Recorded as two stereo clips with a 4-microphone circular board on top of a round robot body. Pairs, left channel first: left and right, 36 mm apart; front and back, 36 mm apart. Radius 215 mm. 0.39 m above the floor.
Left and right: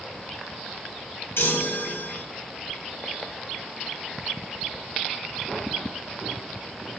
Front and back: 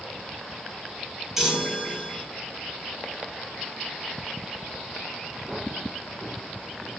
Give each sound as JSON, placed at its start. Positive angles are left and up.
{"t": 1.4, "sound": "a chime", "azimuth_deg": 100, "distance_m": 2.5}